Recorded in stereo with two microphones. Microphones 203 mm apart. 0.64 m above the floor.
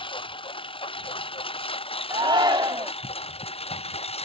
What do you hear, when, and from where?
0.0 s a lawn mower: 25° left (ahead or behind); by 4.3 s 30° left (ahead or behind)
2.1 s a shout: 20° right (ahead or behind)